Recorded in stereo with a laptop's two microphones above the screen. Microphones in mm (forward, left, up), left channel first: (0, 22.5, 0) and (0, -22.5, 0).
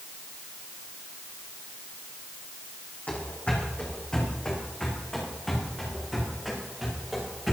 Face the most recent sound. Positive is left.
turn(degrees=-5)  # may be behind; listen again after turning